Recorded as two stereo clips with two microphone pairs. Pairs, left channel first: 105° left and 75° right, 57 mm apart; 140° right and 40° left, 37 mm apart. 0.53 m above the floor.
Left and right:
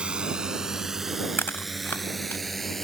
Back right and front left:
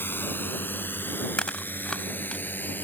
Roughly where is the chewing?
Behind.